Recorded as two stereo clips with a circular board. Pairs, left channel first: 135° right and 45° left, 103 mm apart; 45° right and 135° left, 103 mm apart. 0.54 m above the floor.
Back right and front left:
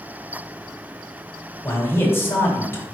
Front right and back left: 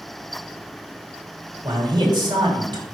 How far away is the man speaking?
About 1.8 m.